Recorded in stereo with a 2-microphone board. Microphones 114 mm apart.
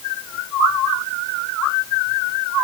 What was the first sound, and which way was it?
Only background noise.